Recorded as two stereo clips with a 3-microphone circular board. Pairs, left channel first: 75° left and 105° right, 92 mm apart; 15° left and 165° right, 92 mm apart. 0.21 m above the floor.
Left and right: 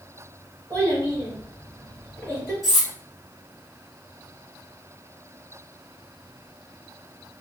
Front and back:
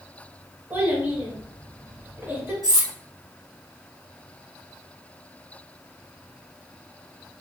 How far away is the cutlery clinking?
About 1.4 m.